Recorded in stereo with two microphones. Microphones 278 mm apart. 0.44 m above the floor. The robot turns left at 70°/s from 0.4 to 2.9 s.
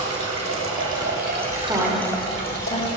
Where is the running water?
70° right, 1.7 m; by 3.0 s 115° left, 1.7 m.